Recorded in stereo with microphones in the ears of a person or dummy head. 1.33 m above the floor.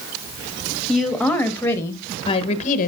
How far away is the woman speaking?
About 2 m.